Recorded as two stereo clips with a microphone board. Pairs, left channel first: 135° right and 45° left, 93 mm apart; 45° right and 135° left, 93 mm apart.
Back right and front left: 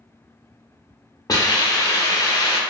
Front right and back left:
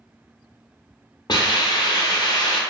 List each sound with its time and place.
1.3 s a hiss: 85° right, 0.6 m